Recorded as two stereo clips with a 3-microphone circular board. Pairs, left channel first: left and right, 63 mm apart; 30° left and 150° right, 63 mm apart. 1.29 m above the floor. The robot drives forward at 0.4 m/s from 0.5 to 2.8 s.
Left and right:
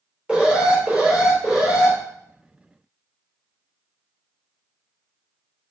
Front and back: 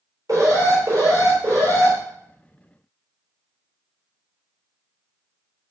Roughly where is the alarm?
Behind.